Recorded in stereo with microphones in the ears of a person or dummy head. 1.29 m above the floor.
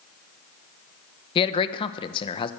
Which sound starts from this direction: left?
A man speaking, at 1.4 s.